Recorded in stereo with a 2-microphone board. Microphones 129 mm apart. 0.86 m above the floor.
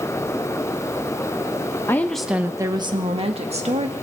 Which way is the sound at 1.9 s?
20° left (ahead or behind).